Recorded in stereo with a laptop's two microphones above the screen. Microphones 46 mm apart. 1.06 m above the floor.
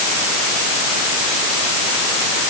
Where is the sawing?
I don't hear sawing.